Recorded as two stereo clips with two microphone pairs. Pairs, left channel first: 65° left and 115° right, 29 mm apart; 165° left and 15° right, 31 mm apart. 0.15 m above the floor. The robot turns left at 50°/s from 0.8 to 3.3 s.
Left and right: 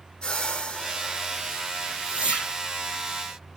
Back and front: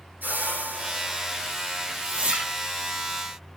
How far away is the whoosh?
About 3 m.